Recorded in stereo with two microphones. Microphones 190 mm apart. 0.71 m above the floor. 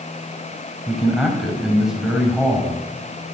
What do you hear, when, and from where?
0.9 s a man speaking: centre (ahead or behind), 4 m